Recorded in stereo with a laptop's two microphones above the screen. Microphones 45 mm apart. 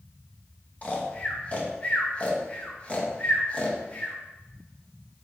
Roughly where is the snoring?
Left.